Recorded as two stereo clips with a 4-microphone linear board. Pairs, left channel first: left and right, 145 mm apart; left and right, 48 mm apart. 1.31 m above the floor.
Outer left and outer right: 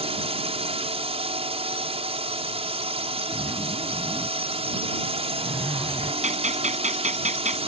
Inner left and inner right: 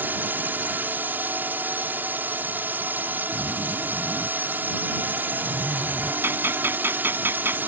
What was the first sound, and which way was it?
A drone, 45° right (ahead or behind).